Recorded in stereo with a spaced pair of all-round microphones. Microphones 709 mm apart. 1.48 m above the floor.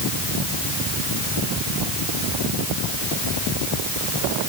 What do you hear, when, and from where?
Only background noise.